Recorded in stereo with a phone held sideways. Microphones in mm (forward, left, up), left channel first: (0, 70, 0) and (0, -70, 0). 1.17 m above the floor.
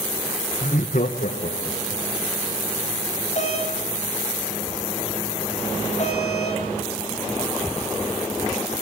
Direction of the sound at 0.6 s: 55° left (ahead or behind).